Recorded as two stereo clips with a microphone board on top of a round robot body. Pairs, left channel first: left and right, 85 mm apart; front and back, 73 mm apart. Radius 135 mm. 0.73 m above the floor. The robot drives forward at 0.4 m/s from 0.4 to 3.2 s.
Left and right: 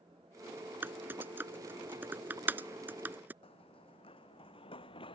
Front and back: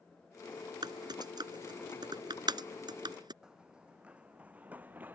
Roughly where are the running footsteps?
Left.